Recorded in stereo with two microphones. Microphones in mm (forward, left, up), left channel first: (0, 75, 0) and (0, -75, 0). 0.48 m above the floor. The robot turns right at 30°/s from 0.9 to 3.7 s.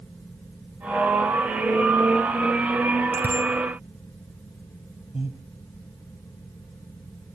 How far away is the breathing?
About 1.7 m.